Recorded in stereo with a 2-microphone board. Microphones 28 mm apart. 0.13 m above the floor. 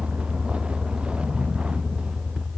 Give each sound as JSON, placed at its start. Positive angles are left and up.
{"t": 0.0, "sound": "a vehicle", "side_deg": -45}